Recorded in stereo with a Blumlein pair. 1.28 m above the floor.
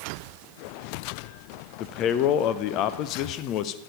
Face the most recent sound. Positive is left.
turn(degrees=35)